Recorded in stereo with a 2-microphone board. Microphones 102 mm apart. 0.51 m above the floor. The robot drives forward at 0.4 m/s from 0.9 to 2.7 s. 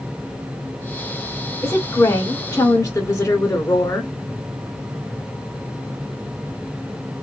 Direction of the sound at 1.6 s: 30° left (ahead or behind).